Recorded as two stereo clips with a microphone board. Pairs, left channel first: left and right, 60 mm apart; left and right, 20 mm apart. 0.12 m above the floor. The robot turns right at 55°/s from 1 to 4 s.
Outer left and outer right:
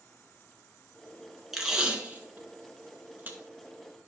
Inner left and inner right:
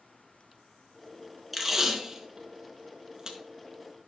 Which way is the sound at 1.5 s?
5° right (ahead or behind).